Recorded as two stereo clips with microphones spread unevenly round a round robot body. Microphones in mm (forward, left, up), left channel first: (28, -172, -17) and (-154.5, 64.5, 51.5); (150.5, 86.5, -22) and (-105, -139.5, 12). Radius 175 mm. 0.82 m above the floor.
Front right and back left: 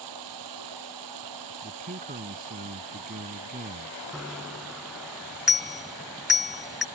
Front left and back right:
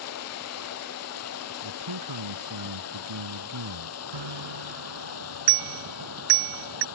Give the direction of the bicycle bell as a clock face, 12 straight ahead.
5 o'clock.